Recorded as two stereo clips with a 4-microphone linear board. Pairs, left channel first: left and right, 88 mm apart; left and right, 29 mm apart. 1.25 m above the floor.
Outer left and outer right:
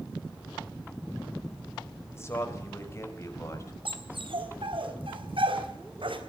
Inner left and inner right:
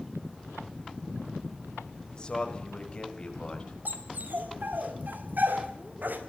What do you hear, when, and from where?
2.1 s a man speaking: 30° left (ahead or behind), 4.5 m; by 3.8 s 35° left (ahead or behind), 7 m
3.9 s a dog barking: 80° right, 3.5 m